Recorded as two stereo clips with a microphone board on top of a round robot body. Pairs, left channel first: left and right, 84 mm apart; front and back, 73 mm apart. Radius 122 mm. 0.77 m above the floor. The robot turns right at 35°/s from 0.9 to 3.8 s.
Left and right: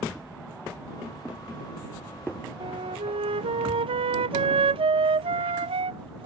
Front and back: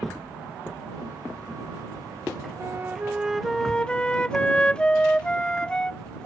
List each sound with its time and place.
2.6 s a flute: 120° right; by 6.3 s 75° right